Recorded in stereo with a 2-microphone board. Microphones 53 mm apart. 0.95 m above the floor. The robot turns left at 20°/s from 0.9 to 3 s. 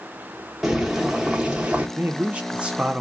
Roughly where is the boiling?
Centre.